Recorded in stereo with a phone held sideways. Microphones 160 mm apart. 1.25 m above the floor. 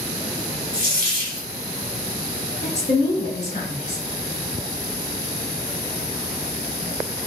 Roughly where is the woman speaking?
Left.